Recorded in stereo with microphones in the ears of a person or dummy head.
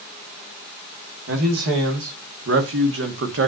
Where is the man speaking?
60° right (ahead or behind), 3.5 m; by 3.5 s 55° right (ahead or behind), 2 m.